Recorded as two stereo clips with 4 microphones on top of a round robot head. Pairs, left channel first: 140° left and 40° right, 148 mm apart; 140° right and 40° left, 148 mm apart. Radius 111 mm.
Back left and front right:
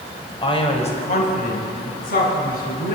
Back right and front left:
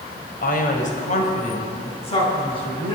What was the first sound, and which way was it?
A man speaking, 160° right.